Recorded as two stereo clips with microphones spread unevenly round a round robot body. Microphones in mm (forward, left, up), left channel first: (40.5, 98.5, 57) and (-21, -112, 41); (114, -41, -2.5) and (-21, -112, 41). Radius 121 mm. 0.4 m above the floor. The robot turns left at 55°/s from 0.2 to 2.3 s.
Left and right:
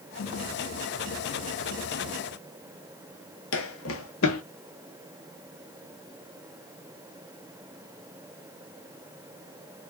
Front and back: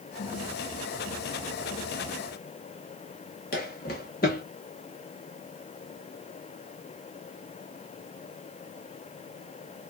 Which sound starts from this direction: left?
Footsteps, at 3.5 s.